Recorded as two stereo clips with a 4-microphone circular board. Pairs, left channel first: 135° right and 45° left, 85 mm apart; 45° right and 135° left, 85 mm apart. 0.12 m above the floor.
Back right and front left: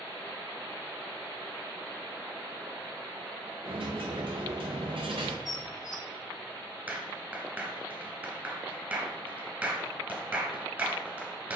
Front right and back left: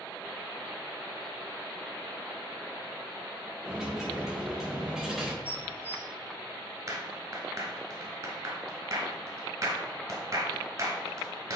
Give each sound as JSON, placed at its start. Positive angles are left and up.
{"t": 3.6, "sound": "a dropped coin", "azimuth_deg": 50, "distance_m": 1.1}
{"t": 5.5, "sound": "dishes clattering", "azimuth_deg": -105, "distance_m": 1.9}
{"t": 6.9, "sound": "a clap", "azimuth_deg": 105, "distance_m": 1.7}